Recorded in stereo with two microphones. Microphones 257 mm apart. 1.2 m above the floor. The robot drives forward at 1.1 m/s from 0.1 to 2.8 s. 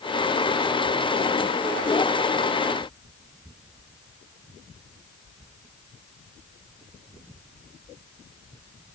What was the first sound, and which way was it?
Only background noise.